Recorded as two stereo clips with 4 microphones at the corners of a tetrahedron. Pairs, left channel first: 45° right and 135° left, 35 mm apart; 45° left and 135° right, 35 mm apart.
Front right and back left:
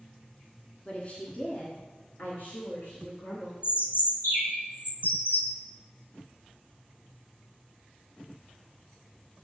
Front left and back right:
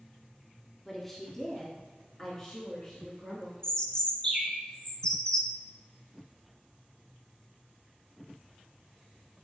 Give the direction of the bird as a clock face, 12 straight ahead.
1 o'clock.